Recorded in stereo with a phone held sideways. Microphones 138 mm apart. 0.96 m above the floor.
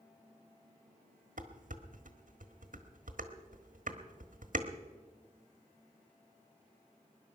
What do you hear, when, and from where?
1.4 s dishes clattering: 70° right (ahead or behind), 1.4 m